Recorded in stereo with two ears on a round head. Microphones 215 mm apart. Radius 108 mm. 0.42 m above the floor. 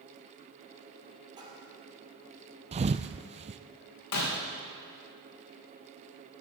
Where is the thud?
25° right (ahead or behind), 0.5 m.